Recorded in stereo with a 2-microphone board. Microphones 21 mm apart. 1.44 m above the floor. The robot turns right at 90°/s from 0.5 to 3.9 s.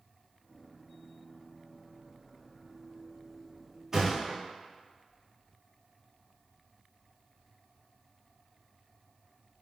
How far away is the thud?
About 1.0 m.